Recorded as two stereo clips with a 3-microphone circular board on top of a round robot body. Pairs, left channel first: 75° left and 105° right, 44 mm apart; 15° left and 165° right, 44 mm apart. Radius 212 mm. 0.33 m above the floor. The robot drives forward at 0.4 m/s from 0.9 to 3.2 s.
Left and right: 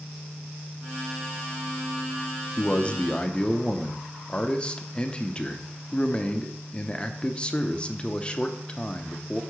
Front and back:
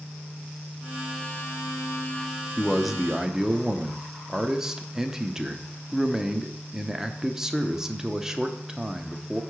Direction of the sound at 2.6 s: 95° left.